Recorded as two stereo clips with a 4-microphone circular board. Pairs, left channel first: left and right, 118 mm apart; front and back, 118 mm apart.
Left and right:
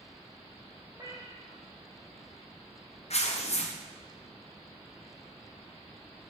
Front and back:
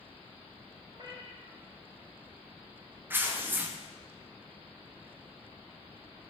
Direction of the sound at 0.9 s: 140° right.